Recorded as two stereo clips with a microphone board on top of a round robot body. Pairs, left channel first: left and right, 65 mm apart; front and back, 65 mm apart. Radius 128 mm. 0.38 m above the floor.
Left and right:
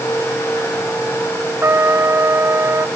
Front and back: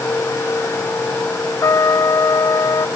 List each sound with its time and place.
1.6 s a trumpet: 40° right